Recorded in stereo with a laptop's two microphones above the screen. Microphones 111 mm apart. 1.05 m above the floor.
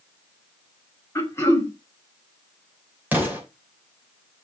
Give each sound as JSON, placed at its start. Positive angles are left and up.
{"t": 1.1, "sound": "throat clearing", "side_deg": 25, "distance_m": 1.9}
{"t": 3.1, "sound": "an explosion", "side_deg": -15, "distance_m": 3.0}